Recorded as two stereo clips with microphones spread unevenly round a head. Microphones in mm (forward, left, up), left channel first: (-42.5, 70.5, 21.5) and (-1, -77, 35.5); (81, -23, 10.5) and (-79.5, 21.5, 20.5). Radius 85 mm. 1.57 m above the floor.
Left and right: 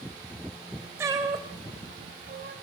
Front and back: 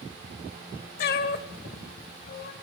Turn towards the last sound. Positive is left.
turn(degrees=-50)